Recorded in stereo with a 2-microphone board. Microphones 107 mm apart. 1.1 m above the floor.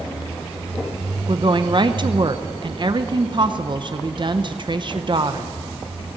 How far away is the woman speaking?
About 0.7 m.